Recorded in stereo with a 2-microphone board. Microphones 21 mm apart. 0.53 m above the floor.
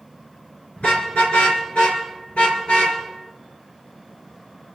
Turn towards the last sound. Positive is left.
turn(degrees=85)